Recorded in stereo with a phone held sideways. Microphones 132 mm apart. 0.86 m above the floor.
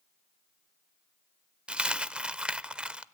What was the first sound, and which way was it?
A dropped coin, 5° right (ahead or behind).